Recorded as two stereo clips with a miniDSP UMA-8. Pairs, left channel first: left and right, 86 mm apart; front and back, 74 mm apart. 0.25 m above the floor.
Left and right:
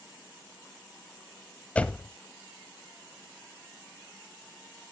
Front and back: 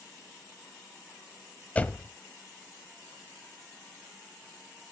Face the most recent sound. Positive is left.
turn(degrees=40)